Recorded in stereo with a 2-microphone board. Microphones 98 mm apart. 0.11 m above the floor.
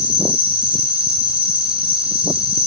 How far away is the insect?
About 1.3 m.